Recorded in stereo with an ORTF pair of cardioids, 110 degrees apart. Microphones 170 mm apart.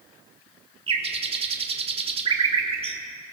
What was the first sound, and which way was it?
A bird, 35° right.